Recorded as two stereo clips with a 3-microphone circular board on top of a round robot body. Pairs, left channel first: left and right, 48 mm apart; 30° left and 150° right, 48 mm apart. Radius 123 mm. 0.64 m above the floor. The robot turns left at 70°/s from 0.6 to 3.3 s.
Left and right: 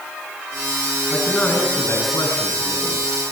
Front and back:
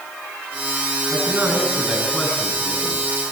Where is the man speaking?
Straight behind, 7 m; by 3.1 s 40° left, 7 m.